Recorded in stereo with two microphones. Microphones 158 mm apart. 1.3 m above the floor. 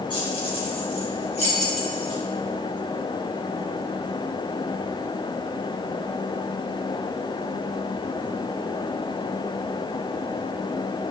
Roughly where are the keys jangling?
Left.